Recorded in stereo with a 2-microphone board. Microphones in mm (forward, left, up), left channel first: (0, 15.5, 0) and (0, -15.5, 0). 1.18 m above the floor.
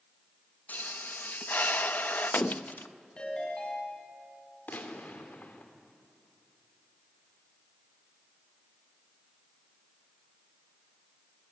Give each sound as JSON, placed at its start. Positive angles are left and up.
{"t": 0.7, "sound": "a pop", "side_deg": 70, "distance_m": 0.7}
{"t": 3.2, "sound": "a ringtone", "side_deg": 30, "distance_m": 6.5}
{"t": 4.7, "sound": "a gunshot", "side_deg": 75, "distance_m": 3.0}